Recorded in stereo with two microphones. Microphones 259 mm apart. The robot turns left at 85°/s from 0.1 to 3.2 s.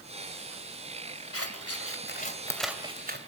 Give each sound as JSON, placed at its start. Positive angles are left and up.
{"t": 1.3, "sound": "scissors", "side_deg": 60, "distance_m": 2.0}